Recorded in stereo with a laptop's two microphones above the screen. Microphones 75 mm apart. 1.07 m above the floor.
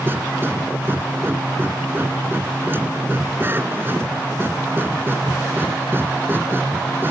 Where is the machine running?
30° right (ahead or behind).